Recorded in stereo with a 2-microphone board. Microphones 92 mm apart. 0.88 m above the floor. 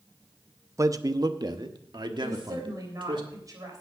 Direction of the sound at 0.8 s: 35° right (ahead or behind).